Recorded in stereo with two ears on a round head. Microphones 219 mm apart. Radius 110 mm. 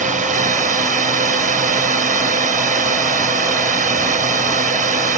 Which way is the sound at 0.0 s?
30° right (ahead or behind).